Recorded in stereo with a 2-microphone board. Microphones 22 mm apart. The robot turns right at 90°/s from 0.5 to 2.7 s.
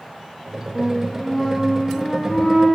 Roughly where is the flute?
Ahead right.